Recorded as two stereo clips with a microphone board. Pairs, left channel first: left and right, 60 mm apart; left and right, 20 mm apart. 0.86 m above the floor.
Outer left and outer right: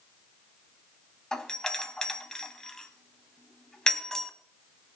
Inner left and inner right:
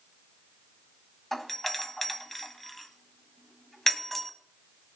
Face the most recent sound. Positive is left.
turn(degrees=10)  # may be behind; listen again after turning